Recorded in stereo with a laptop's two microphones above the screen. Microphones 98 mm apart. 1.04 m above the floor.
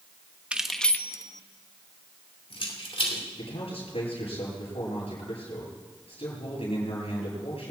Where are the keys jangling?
10° right (ahead or behind), 1.0 m; by 3.2 s 70° left (ahead or behind), 3 m.